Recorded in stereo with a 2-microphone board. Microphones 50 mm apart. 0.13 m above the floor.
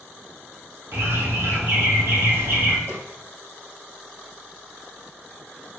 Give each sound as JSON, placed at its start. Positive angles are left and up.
{"t": 0.9, "sound": "a bird", "side_deg": -60, "distance_m": 1.2}
{"t": 2.9, "sound": "a snare drum", "side_deg": -60, "distance_m": 2.5}